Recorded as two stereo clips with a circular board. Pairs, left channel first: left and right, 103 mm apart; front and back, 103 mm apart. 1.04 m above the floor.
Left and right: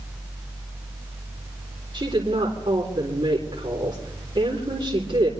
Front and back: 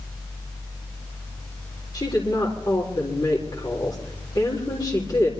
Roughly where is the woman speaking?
Ahead right.